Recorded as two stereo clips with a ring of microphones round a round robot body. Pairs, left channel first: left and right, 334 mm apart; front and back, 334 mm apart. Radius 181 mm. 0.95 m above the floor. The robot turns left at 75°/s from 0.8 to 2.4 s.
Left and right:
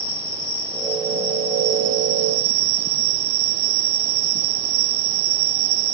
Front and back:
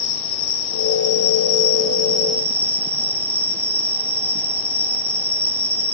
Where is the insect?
25° left, 0.9 m; by 5.9 s 95° right, 0.9 m.